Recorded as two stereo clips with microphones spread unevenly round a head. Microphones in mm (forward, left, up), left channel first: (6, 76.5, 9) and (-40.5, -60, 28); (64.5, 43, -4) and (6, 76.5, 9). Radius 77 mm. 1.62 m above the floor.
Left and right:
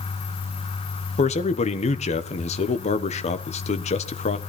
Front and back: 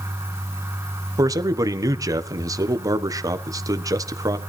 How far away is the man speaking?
About 1.3 m.